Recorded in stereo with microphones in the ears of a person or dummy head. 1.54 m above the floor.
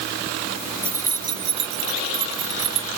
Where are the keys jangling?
15° right (ahead or behind); by 2.9 s 40° right (ahead or behind).